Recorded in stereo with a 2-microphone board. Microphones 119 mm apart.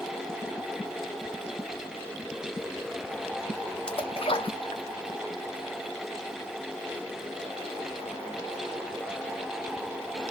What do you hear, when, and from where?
3.9 s a splash: 50° left (ahead or behind), 0.5 m